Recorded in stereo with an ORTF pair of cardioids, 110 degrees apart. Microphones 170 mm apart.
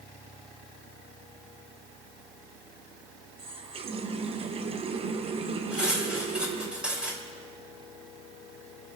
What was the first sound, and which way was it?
A running tap, 35° right.